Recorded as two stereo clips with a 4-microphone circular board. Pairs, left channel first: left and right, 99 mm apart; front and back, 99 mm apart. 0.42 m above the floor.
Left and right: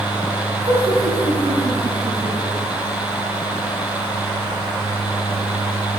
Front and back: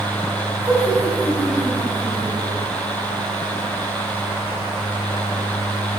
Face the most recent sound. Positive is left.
turn(degrees=-80)